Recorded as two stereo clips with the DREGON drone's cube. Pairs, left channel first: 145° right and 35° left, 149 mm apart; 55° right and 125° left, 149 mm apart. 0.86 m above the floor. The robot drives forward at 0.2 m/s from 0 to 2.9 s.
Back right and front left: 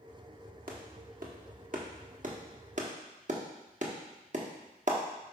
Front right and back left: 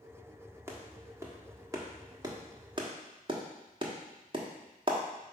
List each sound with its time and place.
0.7 s a clap: 50° left, 1.5 m; by 5.0 s 70° left, 1.3 m